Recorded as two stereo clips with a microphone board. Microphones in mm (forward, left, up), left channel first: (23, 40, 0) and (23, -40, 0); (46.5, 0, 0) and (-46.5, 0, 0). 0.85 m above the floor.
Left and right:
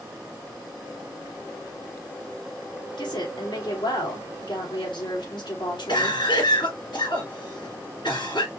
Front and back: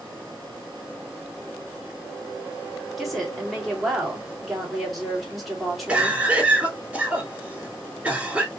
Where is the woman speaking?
90° left, 2.5 m.